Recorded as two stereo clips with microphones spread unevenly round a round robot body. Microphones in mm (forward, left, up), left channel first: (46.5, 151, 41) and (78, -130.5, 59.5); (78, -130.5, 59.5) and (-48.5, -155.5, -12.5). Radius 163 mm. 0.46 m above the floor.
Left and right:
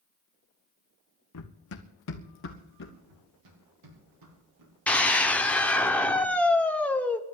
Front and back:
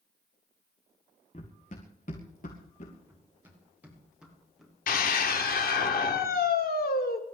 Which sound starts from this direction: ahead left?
Running footsteps, at 1.3 s.